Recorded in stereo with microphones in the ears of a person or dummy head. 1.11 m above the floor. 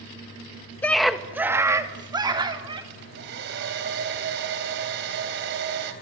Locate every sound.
0.8 s a scream: 5° left (ahead or behind), 1.4 m; by 2.8 s 30° right (ahead or behind), 4 m
2.9 s a hair dryer: 60° right (ahead or behind), 3.5 m